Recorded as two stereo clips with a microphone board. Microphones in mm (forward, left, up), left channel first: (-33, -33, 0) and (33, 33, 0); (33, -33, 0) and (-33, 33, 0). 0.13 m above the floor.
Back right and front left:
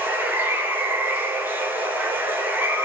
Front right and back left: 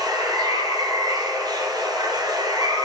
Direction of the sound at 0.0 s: 110° left.